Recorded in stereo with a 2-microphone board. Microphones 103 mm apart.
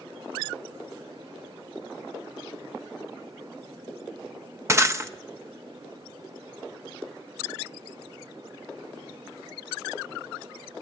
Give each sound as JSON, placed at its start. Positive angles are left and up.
{"t": 4.7, "sound": "breaking glass", "side_deg": -25, "distance_m": 0.7}